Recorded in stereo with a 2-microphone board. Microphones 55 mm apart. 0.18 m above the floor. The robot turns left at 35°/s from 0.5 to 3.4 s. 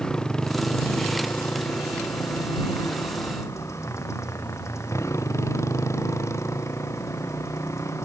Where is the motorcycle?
165° left; by 8.1 s 65° left.